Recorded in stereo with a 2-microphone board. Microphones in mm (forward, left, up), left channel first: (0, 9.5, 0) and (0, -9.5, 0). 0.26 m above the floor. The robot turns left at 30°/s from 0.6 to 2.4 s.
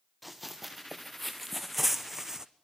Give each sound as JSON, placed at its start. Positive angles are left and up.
{"t": 0.2, "sound": "running footsteps", "side_deg": 0, "distance_m": 2.5}